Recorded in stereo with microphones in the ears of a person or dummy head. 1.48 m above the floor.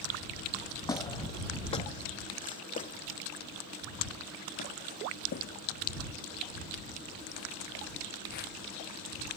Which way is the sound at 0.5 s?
15° left (ahead or behind).